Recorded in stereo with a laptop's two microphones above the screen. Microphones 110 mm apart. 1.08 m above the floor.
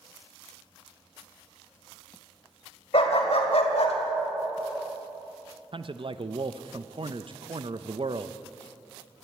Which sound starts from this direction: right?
A man speaking, at 5.7 s.